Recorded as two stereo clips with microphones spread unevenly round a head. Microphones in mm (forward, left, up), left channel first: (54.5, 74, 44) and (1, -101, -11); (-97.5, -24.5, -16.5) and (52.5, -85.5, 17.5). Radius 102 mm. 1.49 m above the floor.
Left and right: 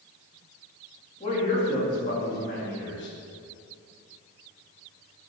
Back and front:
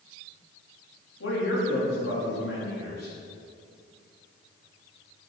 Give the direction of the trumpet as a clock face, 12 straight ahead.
No trumpet in this recording.